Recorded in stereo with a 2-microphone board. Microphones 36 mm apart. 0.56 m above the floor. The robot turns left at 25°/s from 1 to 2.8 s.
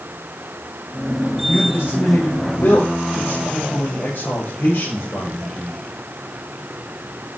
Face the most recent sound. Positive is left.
turn(degrees=65)